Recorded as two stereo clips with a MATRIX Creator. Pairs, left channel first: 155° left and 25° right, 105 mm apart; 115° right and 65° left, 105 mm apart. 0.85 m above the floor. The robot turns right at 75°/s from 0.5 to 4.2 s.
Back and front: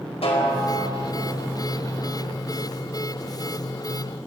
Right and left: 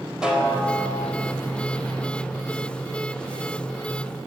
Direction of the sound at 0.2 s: 150° left.